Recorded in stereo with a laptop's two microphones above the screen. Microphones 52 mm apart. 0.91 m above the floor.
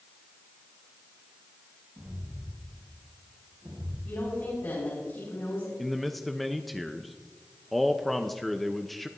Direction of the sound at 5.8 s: Centre (ahead or behind).